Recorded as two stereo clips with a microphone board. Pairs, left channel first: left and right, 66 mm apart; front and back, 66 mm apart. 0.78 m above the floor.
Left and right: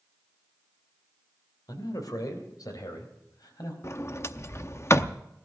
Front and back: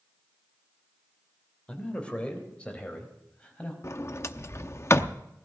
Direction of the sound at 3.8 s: 45° left.